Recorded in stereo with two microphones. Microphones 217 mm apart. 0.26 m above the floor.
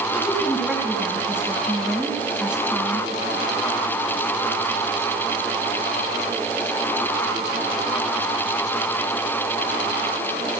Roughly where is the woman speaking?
Centre.